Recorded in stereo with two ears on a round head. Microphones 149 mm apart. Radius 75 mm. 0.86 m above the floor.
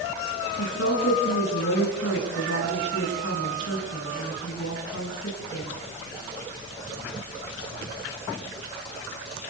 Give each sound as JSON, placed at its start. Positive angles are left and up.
{"t": 0.6, "sound": "a woman speaking", "side_deg": 80, "distance_m": 7.5}